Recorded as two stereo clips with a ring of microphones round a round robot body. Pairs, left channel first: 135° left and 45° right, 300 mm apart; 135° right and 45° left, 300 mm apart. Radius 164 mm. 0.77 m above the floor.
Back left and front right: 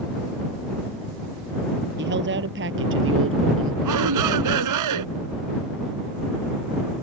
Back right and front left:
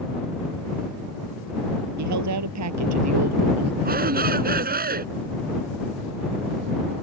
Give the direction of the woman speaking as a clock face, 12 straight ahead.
12 o'clock.